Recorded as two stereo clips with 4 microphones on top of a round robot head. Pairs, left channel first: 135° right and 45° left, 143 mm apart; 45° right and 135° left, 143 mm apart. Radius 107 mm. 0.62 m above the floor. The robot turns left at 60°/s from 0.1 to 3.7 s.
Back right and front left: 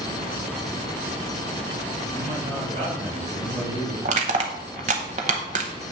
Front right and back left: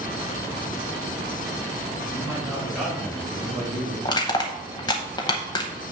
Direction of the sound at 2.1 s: 85° left.